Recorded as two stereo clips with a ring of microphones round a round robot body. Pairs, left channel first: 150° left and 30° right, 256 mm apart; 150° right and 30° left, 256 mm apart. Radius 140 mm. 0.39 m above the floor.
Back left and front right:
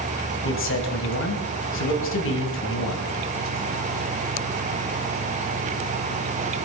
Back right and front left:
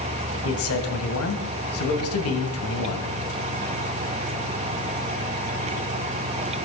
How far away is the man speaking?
About 2.5 m.